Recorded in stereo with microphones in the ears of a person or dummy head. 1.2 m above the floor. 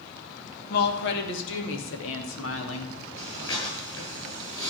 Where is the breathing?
25° left (ahead or behind), 5.5 m.